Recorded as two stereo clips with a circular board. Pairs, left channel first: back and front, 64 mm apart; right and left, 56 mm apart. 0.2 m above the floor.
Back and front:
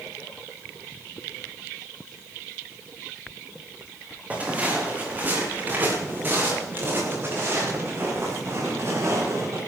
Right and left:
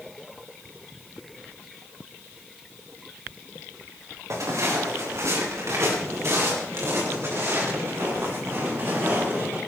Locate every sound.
4.3 s footsteps: 65° left, 5.5 m; by 9.6 s 45° left, 8.5 m